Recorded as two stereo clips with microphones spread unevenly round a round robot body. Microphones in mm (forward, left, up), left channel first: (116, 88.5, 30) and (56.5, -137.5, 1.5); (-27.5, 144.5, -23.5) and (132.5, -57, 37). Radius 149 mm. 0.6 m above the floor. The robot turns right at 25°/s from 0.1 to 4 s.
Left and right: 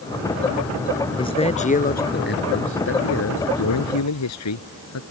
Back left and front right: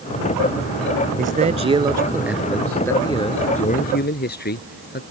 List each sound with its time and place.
1.2 s a man speaking: 5° left; by 5.0 s 75° left